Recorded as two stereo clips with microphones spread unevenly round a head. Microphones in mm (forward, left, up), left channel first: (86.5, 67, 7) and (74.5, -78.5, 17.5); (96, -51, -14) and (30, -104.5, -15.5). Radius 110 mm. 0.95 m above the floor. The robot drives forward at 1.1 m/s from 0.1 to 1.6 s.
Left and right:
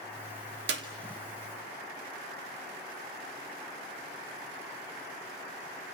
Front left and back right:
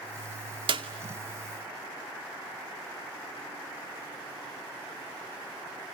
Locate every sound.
0.7 s a clap: 120° right, 2.5 m